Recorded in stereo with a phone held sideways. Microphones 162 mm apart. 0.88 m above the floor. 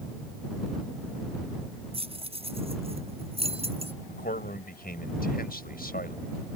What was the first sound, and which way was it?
Keys jangling, 40° right (ahead or behind).